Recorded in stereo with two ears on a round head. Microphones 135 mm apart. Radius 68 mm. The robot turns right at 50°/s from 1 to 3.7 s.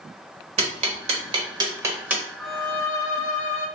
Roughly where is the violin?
Ahead.